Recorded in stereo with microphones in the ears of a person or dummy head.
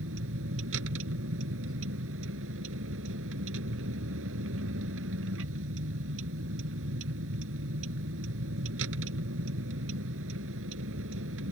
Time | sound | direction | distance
0.0 | a vehicle | 70° right (ahead or behind) | ?